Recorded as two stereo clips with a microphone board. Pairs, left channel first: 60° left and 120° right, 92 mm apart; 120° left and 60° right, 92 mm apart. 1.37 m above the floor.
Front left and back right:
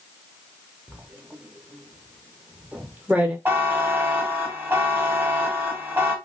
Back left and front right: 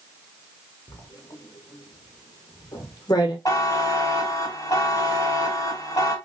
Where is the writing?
165° left, 0.8 m.